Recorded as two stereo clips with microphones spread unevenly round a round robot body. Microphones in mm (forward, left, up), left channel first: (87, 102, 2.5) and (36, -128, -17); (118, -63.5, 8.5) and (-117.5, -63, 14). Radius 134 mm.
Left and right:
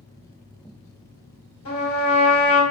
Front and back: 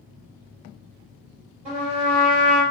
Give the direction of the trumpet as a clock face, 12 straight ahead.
8 o'clock.